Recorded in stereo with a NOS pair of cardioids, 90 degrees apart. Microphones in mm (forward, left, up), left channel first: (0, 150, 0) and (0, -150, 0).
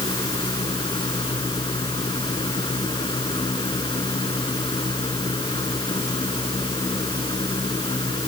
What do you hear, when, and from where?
0.0 s a fan: 15° left